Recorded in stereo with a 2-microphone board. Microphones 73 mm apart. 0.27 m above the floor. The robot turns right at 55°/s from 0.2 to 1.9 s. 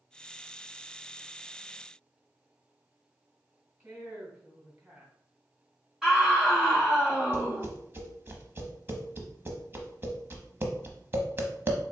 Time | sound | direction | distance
3.8 | a woman speaking | 30° right (ahead or behind) | 2 m
6.0 | a scream | 5° right (ahead or behind) | 2 m
7.3 | tapping | 35° right (ahead or behind) | 0.9 m